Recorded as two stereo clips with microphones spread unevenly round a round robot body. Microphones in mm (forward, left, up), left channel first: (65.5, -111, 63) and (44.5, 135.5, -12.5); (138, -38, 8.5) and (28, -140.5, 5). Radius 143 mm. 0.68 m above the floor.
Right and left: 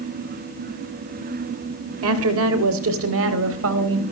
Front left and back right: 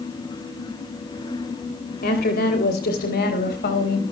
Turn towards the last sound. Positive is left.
turn(degrees=65)